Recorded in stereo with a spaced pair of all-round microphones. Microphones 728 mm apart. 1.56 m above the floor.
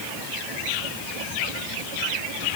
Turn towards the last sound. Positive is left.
No sound to turn to.